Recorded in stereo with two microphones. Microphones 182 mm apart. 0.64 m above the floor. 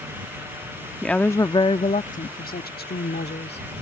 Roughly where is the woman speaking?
Centre.